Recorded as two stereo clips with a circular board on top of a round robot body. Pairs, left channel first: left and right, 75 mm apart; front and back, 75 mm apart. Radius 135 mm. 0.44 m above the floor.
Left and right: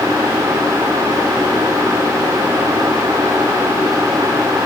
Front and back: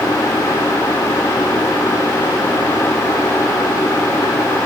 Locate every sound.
Only background noise.